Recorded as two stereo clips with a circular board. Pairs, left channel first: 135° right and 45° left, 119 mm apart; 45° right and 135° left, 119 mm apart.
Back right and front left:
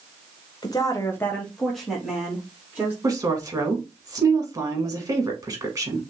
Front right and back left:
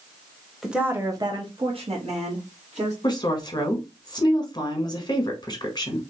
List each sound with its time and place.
0.6 s a woman speaking: 140° right, 0.9 m; by 2.9 s 125° left, 2 m
3.0 s a woman speaking: 5° right, 1.3 m